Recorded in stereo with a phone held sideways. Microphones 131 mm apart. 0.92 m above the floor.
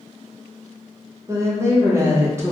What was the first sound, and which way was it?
A woman speaking, 20° right (ahead or behind).